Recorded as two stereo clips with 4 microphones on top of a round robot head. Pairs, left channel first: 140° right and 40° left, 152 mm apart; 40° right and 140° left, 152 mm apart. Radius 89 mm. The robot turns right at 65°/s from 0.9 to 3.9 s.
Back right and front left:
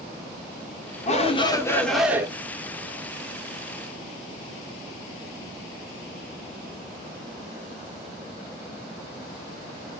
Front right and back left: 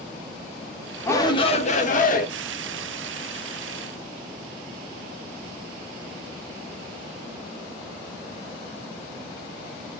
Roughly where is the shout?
Right.